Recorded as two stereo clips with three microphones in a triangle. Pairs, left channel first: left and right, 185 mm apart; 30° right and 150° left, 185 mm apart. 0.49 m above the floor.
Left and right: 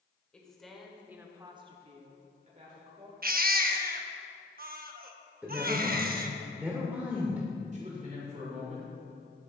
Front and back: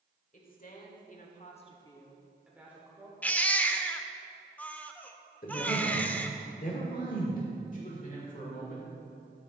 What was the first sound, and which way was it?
A woman speaking, 5° left.